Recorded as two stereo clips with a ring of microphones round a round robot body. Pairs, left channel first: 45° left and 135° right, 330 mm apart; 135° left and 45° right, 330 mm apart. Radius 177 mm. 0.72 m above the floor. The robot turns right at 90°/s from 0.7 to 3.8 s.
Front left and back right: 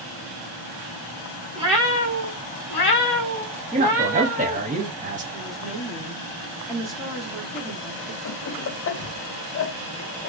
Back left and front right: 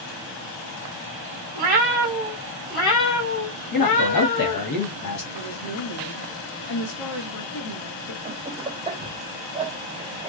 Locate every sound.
1.6 s a cat meowing: 60° right, 1.3 m; by 4.6 s 140° left, 1.3 m
3.7 s a man speaking: 150° left, 1.4 m; by 5.2 s 160° left, 1.4 m
5.3 s a woman speaking: 135° left, 1.2 m
8.2 s laughter: 20° left, 0.6 m